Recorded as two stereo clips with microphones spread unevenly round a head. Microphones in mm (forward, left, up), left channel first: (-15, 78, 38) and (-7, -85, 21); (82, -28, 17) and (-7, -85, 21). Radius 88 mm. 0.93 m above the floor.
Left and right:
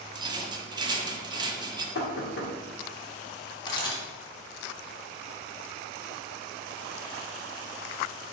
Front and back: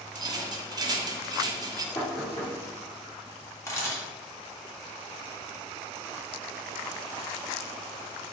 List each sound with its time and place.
0.1 s a rattle: 125° right, 0.5 m
1.9 s knocking: 110° left, 0.8 m
3.7 s a camera shutter: 50° left, 0.9 m